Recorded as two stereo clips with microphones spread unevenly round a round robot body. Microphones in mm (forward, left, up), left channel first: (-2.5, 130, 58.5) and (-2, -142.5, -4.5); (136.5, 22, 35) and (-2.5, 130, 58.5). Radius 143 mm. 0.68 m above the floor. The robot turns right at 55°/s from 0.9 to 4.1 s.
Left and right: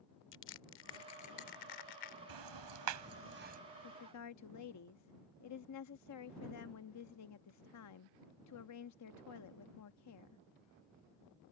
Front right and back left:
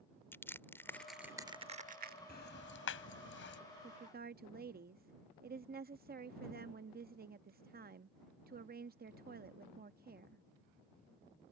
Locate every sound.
0.3 s crushing: 40° left; by 2.2 s 115° left
2.3 s ticking: 95° right; by 3.6 s 25° right
3.8 s a woman speaking: 100° left; by 10.4 s 115° left